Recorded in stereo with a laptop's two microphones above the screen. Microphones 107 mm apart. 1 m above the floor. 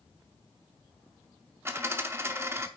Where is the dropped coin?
25° right (ahead or behind), 0.7 m.